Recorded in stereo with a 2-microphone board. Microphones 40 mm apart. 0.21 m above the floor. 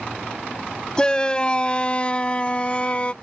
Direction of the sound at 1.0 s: 20° left (ahead or behind).